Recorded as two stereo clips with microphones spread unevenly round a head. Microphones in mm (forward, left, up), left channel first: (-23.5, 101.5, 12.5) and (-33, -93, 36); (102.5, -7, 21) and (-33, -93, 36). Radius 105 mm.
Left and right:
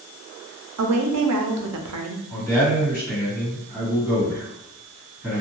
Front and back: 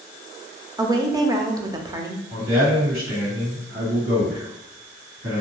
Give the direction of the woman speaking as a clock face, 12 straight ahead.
3 o'clock.